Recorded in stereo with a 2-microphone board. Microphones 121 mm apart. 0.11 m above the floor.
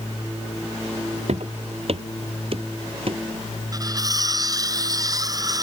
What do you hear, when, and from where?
1.3 s footsteps: 65° right (ahead or behind); by 3.2 s 50° right (ahead or behind)
3.7 s cutlery clinking: 30° right (ahead or behind)